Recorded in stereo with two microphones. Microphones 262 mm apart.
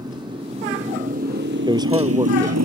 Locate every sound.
0.0 s a motorcycle: 15° right (ahead or behind); by 2.7 s 85° right
1.7 s a man speaking: 15° right (ahead or behind)